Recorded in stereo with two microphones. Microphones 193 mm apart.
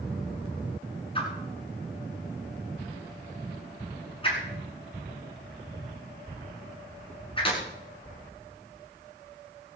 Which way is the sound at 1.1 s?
30° left (ahead or behind).